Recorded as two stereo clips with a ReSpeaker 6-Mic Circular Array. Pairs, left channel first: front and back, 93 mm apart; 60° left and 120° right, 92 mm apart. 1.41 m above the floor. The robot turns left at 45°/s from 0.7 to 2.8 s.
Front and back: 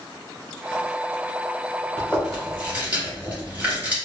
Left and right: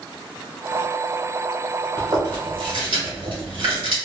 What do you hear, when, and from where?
2.0 s chewing: 75° right, 1.3 m; by 4.0 s 110° right, 1.3 m